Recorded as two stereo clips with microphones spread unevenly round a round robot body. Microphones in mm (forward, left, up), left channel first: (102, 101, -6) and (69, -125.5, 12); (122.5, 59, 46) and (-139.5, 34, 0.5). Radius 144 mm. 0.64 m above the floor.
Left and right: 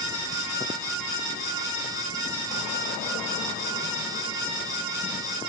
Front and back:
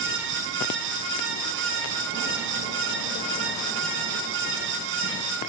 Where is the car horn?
No car horn in this recording.